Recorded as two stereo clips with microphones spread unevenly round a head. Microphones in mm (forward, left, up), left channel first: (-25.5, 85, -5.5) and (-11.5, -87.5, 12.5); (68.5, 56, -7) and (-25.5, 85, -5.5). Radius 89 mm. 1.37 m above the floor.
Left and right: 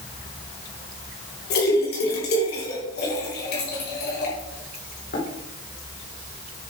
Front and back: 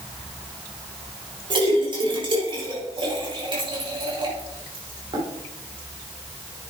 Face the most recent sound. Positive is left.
turn(degrees=125)